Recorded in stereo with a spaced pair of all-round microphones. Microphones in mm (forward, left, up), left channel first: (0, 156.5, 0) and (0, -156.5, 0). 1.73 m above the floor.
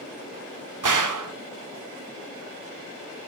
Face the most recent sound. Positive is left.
turn(degrees=-75)  # may be behind; listen again after turning